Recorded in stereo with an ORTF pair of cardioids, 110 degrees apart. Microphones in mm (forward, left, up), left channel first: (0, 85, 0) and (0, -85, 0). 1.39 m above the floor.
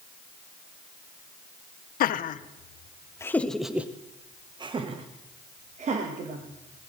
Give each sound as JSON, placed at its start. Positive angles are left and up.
{"t": 2.0, "sound": "laughter", "azimuth_deg": 60, "distance_m": 0.9}